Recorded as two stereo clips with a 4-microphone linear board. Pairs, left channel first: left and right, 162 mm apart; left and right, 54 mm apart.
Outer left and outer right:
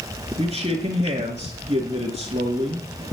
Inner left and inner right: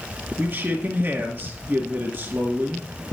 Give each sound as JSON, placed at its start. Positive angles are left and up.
{"t": 0.4, "sound": "a man speaking", "side_deg": -40, "distance_m": 2.5}